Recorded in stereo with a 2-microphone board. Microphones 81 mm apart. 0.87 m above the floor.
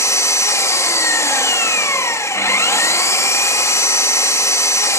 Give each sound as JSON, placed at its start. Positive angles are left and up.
{"t": 0.0, "sound": "an engine running", "side_deg": 35, "distance_m": 1.4}